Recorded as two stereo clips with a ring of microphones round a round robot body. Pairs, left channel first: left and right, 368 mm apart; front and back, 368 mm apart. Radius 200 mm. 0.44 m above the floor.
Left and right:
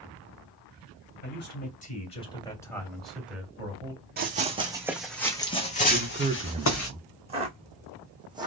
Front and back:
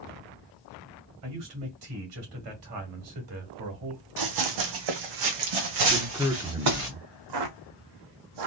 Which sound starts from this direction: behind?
Footsteps, at 7.3 s.